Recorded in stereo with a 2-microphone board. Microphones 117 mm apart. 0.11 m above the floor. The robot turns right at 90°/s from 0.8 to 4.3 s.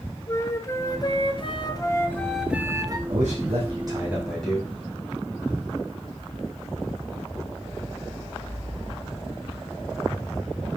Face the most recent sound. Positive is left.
turn(degrees=10)